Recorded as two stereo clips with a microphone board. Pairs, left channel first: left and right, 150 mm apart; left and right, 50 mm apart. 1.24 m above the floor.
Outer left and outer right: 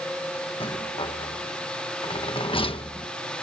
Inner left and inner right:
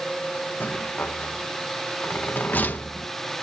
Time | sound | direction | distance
0.6 | a rattle | 35° left (ahead or behind) | ?